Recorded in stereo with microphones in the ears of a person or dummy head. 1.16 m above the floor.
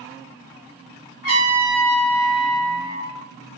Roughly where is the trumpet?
Left.